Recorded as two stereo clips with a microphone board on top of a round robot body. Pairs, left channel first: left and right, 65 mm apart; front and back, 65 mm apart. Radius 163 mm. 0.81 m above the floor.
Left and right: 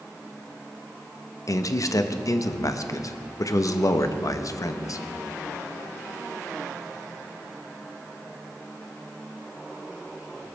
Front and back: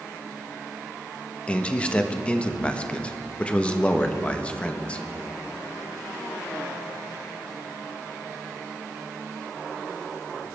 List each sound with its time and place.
1.5 s a man speaking: 70° left, 1.2 m